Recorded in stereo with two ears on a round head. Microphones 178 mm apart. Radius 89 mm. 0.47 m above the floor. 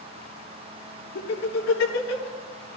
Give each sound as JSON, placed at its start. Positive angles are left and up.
{"t": 1.1, "sound": "laughter", "side_deg": 80, "distance_m": 7.5}